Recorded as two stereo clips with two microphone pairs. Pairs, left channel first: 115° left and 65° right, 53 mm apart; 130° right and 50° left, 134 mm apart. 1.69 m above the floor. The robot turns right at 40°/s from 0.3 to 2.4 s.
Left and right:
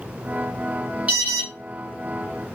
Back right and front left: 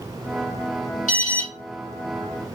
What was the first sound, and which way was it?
An alarm, 130° right.